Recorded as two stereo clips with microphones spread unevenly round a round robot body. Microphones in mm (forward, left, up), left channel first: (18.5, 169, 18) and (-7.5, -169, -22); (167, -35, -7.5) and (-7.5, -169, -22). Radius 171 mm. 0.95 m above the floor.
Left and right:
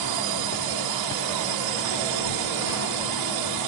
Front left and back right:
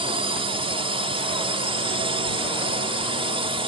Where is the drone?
80° right.